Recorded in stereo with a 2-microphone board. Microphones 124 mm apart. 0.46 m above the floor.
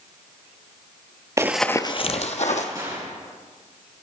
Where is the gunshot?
30° right (ahead or behind), 3 m.